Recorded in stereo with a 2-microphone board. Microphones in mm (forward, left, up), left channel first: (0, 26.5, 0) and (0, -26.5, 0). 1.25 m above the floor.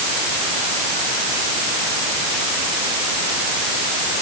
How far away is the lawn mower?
No lawn mower in this recording.